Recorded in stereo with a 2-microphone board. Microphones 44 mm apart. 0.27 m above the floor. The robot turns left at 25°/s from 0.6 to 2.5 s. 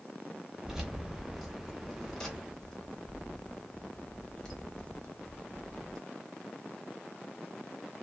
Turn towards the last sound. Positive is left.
turn(degrees=15)  # may be behind; listen again after turning